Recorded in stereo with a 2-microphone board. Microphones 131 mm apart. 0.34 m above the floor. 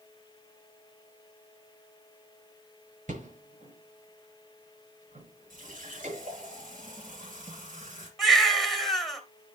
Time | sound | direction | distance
3.1 | a rattle | 75° right (ahead or behind) | 6 m
5.5 | a running tap | 80° right | 4.5 m
8.2 | a baby crying | centre (ahead or behind) | 2.5 m